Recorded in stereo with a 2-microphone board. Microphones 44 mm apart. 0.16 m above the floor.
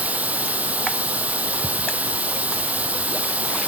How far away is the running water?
About 0.9 m.